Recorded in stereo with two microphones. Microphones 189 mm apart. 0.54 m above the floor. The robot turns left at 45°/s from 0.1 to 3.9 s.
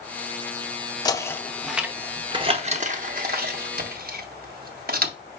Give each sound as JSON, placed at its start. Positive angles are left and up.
{"t": 1.1, "sound": "knocking", "side_deg": 20, "distance_m": 0.5}